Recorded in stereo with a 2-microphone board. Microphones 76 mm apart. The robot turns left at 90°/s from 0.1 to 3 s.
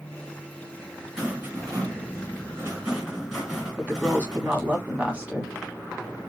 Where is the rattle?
5° right, 2 m; by 4.8 s 170° right, 2 m.